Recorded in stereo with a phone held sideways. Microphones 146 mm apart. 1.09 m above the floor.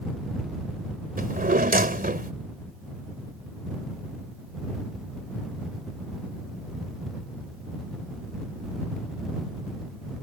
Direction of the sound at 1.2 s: 80° right.